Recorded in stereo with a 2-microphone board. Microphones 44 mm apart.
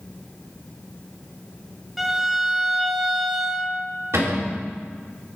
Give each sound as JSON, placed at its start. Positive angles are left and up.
{"t": 2.0, "sound": "a violin", "side_deg": -5, "distance_m": 1.1}
{"t": 4.1, "sound": "a cupboard door", "side_deg": -80, "distance_m": 3.0}